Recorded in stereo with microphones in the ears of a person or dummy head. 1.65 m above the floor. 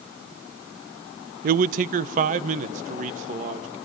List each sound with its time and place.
1.4 s a man speaking: 50° right (ahead or behind), 0.6 m; by 3.8 s 45° right (ahead or behind), 3 m